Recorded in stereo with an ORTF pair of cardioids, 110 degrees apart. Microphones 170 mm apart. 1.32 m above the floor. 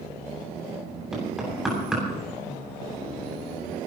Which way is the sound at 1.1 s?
5° right.